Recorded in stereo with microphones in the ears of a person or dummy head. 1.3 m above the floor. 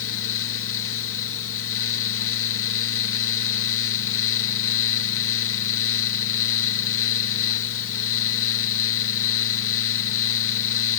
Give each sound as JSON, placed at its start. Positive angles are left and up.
{"t": 0.0, "sound": "a fan", "side_deg": 70}